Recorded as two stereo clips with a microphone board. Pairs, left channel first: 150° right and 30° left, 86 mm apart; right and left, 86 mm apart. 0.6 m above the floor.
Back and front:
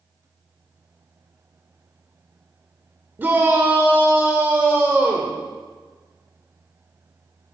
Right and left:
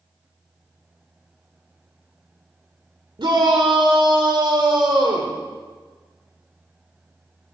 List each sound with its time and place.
3.2 s a shout: 95° left, 1.9 m